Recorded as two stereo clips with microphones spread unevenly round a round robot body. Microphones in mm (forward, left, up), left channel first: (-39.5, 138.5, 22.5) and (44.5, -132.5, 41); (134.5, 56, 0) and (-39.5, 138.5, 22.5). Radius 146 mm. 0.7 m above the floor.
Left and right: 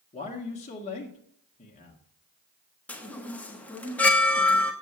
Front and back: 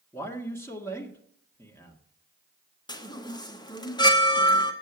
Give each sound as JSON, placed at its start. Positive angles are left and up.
{"t": 0.1, "sound": "a man speaking", "azimuth_deg": 45, "distance_m": 1.6}
{"t": 2.9, "sound": "a chime", "azimuth_deg": 25, "distance_m": 1.3}